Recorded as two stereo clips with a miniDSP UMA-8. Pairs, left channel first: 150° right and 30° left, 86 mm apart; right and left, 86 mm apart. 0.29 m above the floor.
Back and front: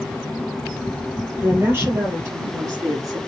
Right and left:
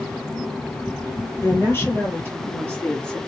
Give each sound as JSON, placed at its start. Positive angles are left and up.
{"t": 1.4, "sound": "a woman speaking", "azimuth_deg": -25, "distance_m": 6.0}